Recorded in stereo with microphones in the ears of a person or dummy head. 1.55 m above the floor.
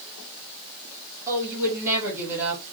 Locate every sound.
1.3 s a woman speaking: 15° right (ahead or behind), 3 m